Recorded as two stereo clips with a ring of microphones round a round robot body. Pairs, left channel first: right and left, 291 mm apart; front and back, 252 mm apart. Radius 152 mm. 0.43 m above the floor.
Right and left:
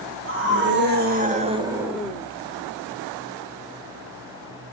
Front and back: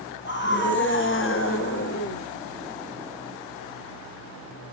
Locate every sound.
0.2 s a scream: 45° left, 3 m; by 2.2 s 15° right, 1.3 m